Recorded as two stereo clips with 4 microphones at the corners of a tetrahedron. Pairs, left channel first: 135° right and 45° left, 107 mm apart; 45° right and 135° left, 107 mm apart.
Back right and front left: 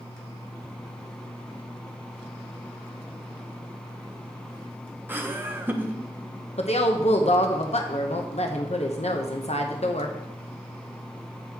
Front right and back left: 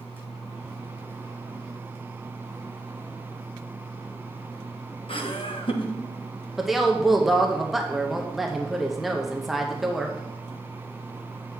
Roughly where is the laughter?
Ahead right.